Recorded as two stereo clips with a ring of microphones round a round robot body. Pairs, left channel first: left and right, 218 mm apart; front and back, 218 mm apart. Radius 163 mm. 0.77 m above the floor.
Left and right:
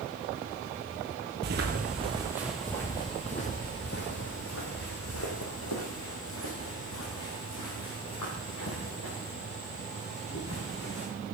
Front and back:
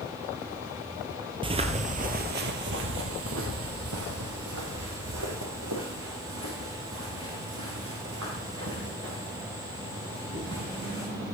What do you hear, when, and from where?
1.4 s footsteps: 120° right, 1.0 m; by 11.1 s 125° left, 6 m